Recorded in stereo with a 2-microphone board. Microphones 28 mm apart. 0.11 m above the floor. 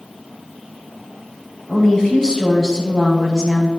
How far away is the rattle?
No rattle in this recording.